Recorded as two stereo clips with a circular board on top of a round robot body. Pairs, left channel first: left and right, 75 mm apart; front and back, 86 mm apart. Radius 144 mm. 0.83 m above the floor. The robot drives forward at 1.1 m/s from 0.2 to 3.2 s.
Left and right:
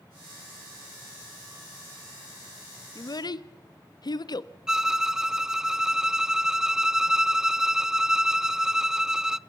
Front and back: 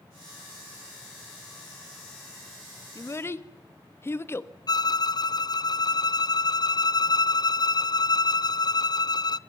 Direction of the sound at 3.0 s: 50° left.